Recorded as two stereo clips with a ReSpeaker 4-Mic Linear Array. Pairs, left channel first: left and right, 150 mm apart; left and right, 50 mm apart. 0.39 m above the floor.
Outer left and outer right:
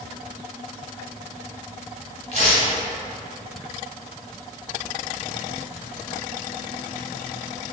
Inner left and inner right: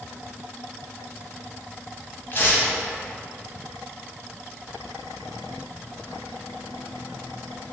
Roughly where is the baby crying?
I don't hear a baby crying.